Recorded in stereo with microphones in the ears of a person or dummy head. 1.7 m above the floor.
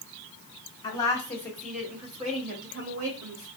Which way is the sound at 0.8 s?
20° left (ahead or behind).